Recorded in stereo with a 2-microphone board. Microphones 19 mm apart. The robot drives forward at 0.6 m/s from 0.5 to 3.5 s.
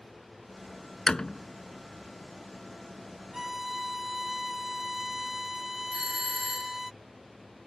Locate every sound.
1.1 s a door slam: 35° left (ahead or behind)
3.3 s a violin: 20° right (ahead or behind)
5.9 s a doorbell: 30° right (ahead or behind)